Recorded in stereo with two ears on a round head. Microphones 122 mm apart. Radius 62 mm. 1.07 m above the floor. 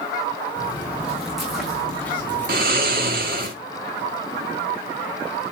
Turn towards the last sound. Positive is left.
turn(degrees=-75)  # may be behind; listen again after turning